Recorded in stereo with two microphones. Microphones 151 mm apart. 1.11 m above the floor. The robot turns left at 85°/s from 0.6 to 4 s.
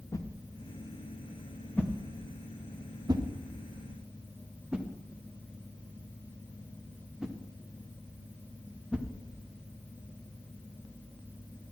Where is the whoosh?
25° left (ahead or behind), 0.7 m; by 9.1 s 5° right (ahead or behind), 0.7 m.